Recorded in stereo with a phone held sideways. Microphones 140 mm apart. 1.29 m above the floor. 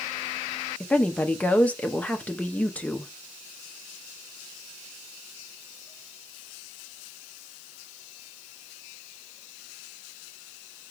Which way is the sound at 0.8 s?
10° left (ahead or behind).